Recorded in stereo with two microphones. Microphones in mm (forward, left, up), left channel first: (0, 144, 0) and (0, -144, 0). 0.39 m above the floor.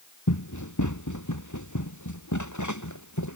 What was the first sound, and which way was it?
Running footsteps, 80° left.